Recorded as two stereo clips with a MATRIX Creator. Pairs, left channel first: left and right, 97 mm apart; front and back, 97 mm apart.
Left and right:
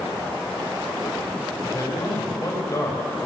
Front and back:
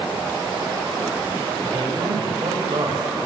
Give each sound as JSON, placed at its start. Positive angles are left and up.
{"t": 1.6, "sound": "a man speaking", "azimuth_deg": 145, "distance_m": 5.5}